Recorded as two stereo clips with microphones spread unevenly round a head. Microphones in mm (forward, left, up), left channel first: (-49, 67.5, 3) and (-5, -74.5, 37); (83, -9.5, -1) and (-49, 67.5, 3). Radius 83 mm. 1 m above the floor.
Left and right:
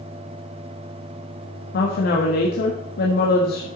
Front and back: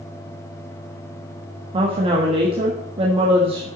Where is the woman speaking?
95° left, 1.3 m.